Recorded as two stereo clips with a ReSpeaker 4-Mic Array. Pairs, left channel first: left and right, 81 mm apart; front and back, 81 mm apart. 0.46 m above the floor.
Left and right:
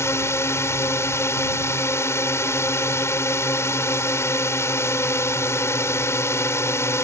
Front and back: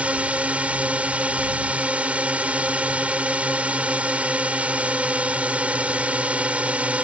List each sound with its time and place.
0.0 s a drone: 115° left